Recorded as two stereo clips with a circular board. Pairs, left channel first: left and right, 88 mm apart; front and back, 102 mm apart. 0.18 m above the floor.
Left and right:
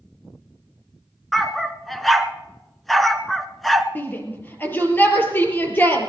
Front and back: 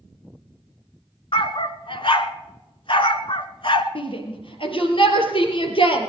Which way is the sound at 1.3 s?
Straight ahead.